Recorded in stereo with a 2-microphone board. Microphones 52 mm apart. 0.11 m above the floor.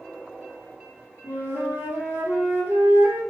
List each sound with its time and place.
1.2 s a flute: 45° right (ahead or behind), 1.9 m